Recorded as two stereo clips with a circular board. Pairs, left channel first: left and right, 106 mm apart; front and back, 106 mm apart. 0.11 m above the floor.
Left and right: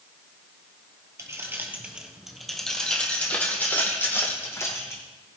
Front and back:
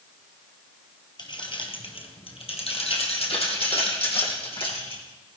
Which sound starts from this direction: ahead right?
Keys jangling, at 1.2 s.